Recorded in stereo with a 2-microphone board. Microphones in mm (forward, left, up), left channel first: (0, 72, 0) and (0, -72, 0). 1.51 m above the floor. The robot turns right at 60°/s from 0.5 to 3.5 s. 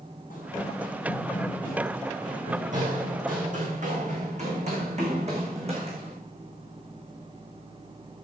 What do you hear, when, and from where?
0.3 s running footsteps: 70° left (ahead or behind), 4.5 m; by 6.1 s 45° right (ahead or behind), 5 m